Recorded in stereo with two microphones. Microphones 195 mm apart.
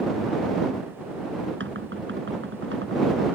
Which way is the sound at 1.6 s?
85° right.